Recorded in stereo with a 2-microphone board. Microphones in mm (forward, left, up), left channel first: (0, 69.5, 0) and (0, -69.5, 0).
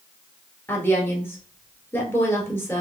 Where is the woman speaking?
15° left (ahead or behind), 1.7 m.